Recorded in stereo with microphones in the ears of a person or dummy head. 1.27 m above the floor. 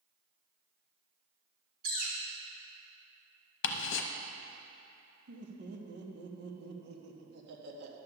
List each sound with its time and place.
1.8 s a bird: 55° right (ahead or behind), 2.0 m
3.6 s ticking: 75° left (ahead or behind), 0.8 m
5.3 s laughter: 70° right (ahead or behind), 1.5 m